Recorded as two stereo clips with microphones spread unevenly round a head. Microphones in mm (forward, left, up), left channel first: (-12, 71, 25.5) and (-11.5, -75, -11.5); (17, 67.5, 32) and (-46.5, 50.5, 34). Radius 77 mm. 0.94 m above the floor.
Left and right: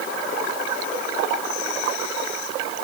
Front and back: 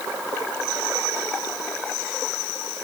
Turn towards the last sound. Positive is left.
No sound to turn to.